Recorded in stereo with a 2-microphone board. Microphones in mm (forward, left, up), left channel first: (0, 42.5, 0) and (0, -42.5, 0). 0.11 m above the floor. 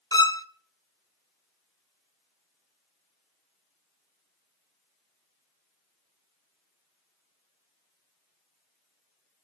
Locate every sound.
0.1 s a violin: 50° left (ahead or behind), 0.6 m